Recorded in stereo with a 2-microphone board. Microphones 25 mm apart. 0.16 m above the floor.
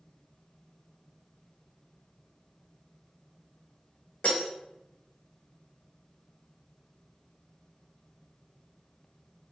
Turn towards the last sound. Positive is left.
turn(degrees=55)  # may be behind; listen again after turning